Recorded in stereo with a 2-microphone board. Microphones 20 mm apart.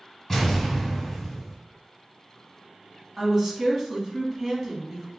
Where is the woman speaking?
20° right (ahead or behind), 1.2 m.